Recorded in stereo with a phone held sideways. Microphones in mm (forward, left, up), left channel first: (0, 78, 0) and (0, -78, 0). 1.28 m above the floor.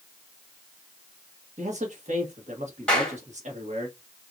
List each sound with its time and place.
1.6 s a man speaking: 50° right (ahead or behind), 1.6 m
2.9 s a clap: 5° left (ahead or behind), 2.5 m